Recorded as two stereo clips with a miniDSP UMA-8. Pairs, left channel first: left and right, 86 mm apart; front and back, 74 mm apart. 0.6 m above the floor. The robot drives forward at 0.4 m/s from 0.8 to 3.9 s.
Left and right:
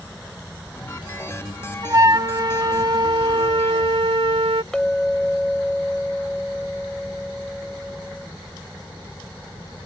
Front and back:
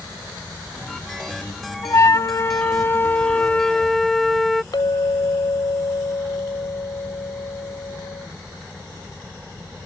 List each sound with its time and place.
1.8 s a flute: 40° right; by 4.6 s 90° right
4.7 s a clink: 5° left